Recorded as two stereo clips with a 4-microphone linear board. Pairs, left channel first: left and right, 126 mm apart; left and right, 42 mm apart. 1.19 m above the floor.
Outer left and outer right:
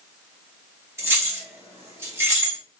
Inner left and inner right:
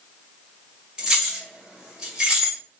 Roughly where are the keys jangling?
Right.